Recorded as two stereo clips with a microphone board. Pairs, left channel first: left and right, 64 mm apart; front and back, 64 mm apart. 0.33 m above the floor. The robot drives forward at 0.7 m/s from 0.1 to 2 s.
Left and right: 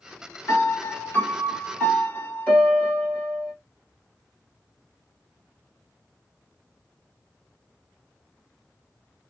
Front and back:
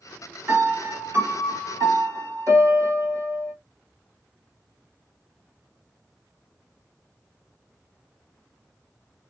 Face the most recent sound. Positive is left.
turn(degrees=160)